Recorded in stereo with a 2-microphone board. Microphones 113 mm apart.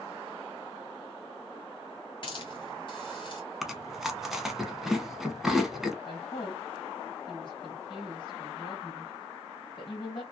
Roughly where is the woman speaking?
Left.